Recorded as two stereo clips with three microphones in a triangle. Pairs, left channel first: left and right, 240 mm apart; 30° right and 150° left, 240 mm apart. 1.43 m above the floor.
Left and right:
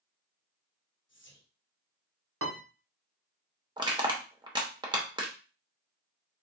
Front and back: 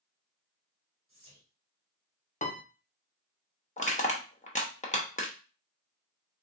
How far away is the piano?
About 0.8 m.